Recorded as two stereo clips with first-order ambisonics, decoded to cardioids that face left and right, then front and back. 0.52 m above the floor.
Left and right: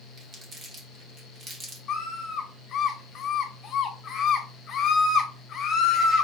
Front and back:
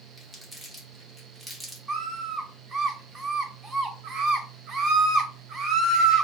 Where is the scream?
130° left, 1.0 m.